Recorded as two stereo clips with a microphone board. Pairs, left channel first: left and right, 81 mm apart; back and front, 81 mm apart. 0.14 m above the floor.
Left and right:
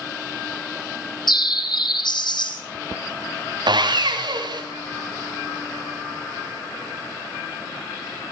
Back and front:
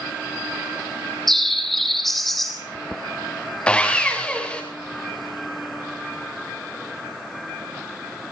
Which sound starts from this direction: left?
A bird, at 1.3 s.